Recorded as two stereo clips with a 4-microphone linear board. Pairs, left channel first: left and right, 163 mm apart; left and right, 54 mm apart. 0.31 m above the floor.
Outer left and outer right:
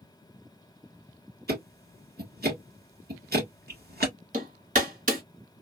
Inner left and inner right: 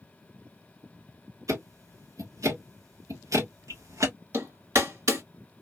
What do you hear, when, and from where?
1.5 s ticking: 80° right, 1.7 m
4.3 s hammering: 55° right (ahead or behind), 2 m